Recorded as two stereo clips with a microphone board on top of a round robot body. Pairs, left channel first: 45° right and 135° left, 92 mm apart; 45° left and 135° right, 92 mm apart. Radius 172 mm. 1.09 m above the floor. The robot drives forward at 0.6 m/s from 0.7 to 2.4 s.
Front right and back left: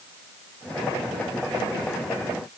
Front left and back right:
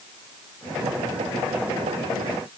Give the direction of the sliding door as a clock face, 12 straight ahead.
No sliding door in this recording.